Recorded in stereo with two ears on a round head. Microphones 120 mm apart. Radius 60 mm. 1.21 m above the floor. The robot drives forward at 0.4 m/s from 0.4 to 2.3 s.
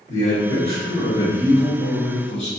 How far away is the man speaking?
About 1.2 m.